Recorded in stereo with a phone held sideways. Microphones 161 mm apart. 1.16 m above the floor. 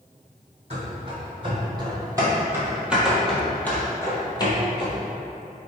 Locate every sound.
0.7 s running footsteps: 45° right (ahead or behind), 2.0 m; by 5.0 s 40° left (ahead or behind), 1.5 m